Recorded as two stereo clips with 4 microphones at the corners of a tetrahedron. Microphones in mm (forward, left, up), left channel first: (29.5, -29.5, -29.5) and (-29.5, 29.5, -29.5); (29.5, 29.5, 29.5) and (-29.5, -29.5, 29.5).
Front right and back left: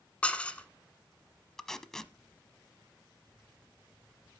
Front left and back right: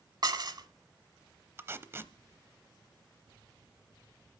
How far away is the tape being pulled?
About 0.8 m.